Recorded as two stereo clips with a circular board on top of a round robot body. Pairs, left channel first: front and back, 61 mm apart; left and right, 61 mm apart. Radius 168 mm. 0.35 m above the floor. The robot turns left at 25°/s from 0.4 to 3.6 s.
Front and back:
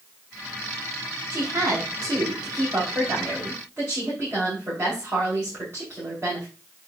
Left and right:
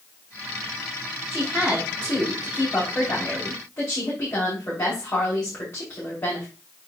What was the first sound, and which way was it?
A woman speaking, 165° right.